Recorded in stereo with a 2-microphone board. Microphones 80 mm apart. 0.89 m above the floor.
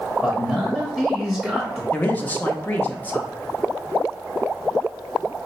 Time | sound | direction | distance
0.2 | a man speaking | 5° left (ahead or behind) | 0.9 m
1.9 | a man speaking | 20° left (ahead or behind) | 0.8 m